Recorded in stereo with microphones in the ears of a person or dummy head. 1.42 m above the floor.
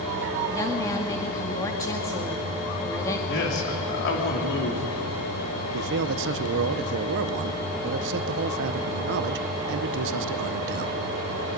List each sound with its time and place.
0.5 s a woman speaking: 20° left (ahead or behind), 1.9 m
3.3 s a man speaking: 65° left (ahead or behind), 3 m
5.7 s a man speaking: 65° right (ahead or behind), 0.7 m